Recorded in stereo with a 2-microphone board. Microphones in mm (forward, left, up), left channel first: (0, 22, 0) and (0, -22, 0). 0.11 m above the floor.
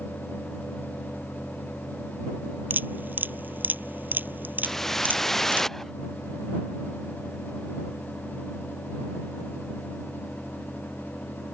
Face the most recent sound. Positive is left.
turn(degrees=5)  # may be behind; listen again after turning